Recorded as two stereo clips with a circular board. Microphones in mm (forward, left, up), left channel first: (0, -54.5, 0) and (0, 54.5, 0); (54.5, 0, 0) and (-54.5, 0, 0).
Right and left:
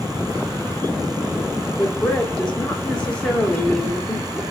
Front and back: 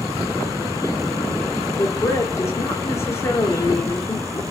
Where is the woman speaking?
20° right, 1.4 m.